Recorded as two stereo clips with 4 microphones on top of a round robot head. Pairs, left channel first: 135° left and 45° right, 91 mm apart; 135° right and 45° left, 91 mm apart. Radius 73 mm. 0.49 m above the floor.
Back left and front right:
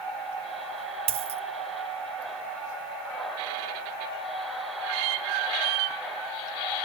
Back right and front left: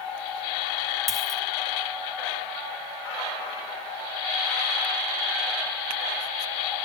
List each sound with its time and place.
1.1 s a dropped coin: 45° right, 1.4 m